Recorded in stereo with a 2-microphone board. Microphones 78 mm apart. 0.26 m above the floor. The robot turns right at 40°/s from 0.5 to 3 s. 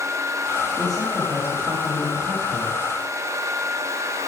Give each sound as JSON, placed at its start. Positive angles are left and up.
{"t": 0.8, "sound": "a man speaking", "azimuth_deg": 170, "distance_m": 9.0}